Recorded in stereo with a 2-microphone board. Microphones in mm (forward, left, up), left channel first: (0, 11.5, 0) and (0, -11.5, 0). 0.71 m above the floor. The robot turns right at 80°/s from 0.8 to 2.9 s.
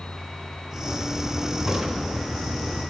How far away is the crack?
About 3 m.